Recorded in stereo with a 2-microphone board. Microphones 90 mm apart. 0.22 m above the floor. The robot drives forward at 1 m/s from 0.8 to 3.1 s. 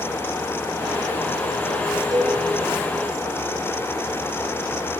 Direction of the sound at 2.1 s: 45° right (ahead or behind).